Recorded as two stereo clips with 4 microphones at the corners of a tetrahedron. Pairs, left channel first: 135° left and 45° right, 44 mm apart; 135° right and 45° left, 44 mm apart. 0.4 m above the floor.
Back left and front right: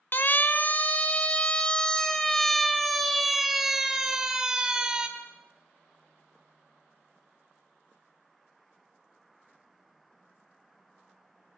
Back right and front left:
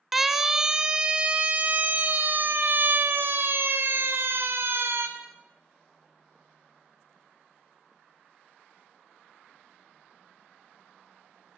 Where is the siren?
125° left, 2 m; by 5.1 s 30° left, 3.5 m.